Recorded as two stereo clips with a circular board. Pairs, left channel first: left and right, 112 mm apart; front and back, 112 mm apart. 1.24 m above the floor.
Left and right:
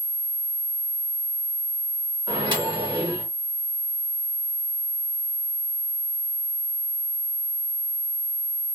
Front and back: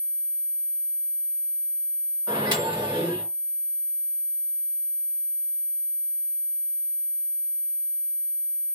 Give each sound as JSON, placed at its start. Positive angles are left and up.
{"t": 2.3, "sound": "a microwave", "azimuth_deg": -135, "distance_m": 1.3}